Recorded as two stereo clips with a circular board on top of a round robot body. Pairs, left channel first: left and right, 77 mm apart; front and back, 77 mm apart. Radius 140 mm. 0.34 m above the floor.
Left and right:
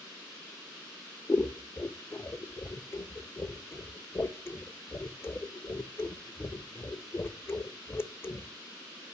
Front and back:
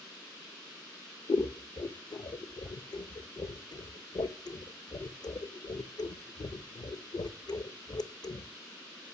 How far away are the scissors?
About 0.6 m.